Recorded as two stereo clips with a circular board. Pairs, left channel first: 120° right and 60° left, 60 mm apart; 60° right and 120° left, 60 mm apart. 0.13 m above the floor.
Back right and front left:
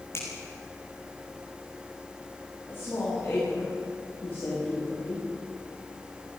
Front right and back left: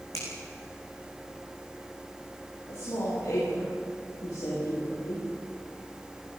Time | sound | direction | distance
0.1 | a finger snap | 80° right | 8.5 m
2.7 | a woman speaking | 65° right | 9 m